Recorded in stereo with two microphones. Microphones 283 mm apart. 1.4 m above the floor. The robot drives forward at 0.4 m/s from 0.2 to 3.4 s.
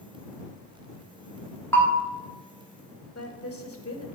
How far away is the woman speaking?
About 1.3 m.